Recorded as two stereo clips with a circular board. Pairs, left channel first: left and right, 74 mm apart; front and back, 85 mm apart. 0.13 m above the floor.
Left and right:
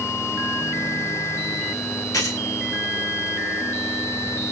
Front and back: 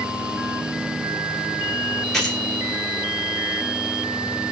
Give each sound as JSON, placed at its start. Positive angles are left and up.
{"t": 2.1, "sound": "keys jangling", "azimuth_deg": 85, "distance_m": 1.1}